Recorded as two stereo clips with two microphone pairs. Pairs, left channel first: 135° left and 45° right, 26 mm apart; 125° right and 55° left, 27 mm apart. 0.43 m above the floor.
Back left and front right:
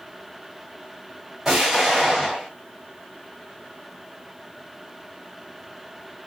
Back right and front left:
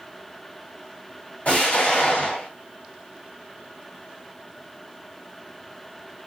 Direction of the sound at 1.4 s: 120° right.